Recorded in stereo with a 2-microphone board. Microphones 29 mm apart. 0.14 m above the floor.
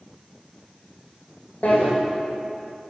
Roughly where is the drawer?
Left.